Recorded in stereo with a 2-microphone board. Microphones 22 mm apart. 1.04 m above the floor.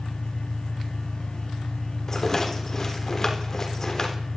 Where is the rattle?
25° left (ahead or behind), 3 m.